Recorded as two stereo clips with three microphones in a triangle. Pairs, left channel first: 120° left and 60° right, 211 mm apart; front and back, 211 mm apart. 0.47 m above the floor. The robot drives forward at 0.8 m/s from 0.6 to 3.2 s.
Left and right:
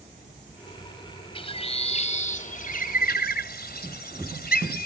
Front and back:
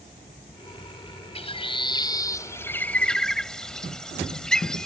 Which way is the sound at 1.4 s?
60° left.